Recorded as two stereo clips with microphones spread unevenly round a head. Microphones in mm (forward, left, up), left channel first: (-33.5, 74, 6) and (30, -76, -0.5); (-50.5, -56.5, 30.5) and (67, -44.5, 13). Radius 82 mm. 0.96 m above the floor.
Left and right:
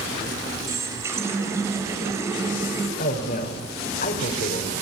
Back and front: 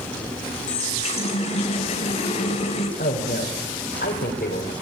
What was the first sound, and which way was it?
A running tap, 145° right.